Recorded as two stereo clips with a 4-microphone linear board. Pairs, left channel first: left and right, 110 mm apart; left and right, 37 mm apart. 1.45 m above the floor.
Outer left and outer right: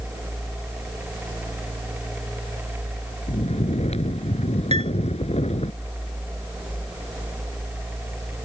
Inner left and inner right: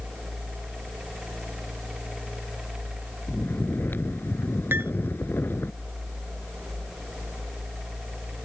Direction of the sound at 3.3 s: 75° left (ahead or behind).